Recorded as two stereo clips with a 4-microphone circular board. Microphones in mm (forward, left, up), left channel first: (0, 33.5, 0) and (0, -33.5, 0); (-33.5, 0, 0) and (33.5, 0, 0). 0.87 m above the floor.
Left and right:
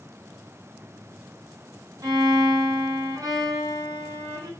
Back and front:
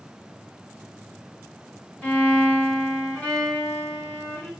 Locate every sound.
2.0 s a violin: 110° right, 3 m